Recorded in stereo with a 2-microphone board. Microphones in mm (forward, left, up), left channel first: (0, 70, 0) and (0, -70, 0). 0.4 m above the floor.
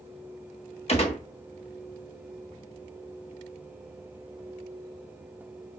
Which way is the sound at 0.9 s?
45° left (ahead or behind).